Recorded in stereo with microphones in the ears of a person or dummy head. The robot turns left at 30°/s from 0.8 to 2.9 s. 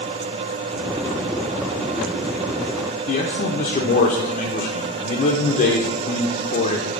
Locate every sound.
3.1 s a man speaking: 35° left (ahead or behind), 0.6 m